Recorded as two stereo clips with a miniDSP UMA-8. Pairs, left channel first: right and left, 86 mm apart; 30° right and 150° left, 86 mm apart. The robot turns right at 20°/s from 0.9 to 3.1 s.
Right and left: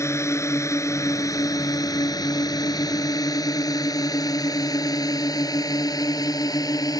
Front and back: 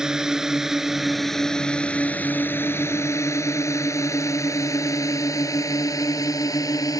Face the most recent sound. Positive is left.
turn(degrees=-60)